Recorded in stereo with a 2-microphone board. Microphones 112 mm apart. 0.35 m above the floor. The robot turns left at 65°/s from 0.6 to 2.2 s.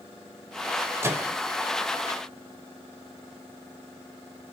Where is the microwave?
25° right (ahead or behind), 0.7 m; by 1.4 s 10° right (ahead or behind), 0.7 m.